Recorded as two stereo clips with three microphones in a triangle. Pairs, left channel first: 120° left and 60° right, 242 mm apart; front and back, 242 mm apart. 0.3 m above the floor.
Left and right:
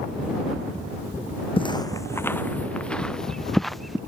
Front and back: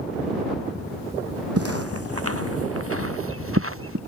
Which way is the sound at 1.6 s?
175° right.